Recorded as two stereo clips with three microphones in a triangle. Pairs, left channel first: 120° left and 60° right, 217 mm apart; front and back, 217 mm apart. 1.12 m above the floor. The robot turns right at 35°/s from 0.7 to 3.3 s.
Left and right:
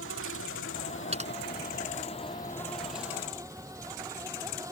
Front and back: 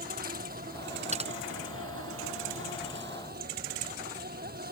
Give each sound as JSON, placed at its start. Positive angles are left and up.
{"t": 0.0, "sound": "an insect", "azimuth_deg": 135}
{"t": 1.1, "sound": "typing on a keyboard", "azimuth_deg": -120}